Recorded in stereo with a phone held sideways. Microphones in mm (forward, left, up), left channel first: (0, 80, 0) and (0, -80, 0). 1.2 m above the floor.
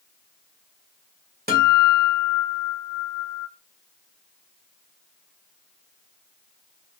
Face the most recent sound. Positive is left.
turn(degrees=-70)  # may be behind; listen again after turning